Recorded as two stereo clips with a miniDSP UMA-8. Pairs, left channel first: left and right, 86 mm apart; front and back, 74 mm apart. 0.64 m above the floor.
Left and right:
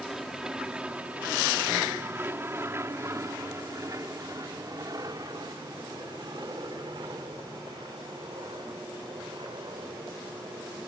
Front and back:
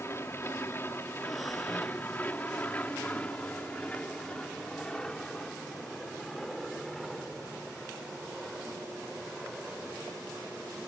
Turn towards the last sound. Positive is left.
turn(degrees=-95)